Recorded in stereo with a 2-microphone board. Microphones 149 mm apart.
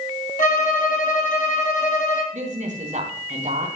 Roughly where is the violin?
Left.